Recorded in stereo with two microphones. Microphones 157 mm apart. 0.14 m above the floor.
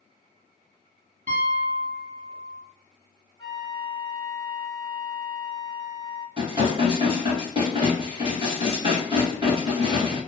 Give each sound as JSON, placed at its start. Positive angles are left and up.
{"t": 1.3, "sound": "a piano", "side_deg": -55, "distance_m": 1.5}
{"t": 3.4, "sound": "a flute", "side_deg": 30, "distance_m": 1.2}
{"t": 6.4, "sound": "dishes clattering", "side_deg": -35, "distance_m": 1.5}